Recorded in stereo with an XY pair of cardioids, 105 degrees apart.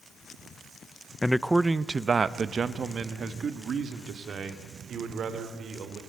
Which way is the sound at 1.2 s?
15° left.